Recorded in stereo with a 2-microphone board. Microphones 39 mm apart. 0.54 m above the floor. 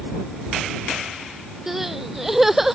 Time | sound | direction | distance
1.7 | crying | 10° right (ahead or behind) | ?